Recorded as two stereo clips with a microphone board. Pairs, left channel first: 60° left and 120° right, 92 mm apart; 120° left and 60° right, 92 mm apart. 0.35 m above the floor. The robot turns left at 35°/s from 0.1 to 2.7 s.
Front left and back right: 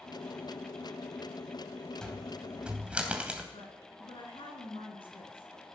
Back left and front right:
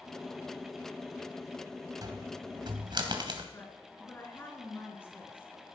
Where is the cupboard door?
20° right, 2.5 m; by 3.4 s 45° right, 2.5 m.